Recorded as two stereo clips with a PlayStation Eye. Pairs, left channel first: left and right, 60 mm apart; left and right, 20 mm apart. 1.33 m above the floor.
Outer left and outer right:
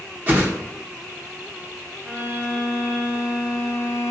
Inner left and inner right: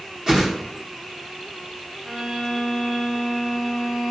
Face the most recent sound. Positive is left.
turn(degrees=-55)  # may be behind; listen again after turning